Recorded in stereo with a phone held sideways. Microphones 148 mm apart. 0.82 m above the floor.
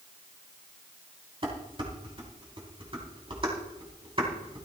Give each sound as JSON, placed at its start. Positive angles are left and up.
{"t": 1.4, "sound": "dishes clattering", "side_deg": -35, "distance_m": 4.0}